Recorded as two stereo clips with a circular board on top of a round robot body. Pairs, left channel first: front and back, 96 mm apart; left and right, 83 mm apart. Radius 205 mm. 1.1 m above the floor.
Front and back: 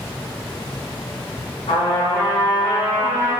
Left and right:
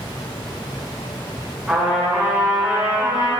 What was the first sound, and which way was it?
A trumpet, 15° right.